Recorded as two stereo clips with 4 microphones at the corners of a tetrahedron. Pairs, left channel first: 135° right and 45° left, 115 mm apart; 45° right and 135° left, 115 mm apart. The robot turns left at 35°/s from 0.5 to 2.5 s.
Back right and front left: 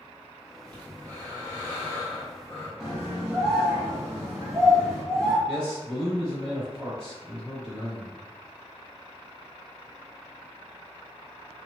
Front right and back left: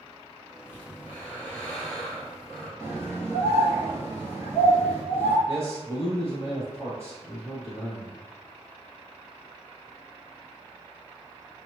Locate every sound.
0.7 s breathing: 85° right, 1.5 m; by 2.7 s 145° right, 1.5 m
2.8 s a scream: 125° left, 1.3 m
5.5 s a man speaking: 150° left, 1.8 m